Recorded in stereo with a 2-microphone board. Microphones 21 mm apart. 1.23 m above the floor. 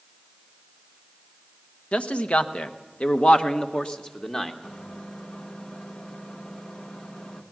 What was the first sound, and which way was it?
A man speaking, 80° left.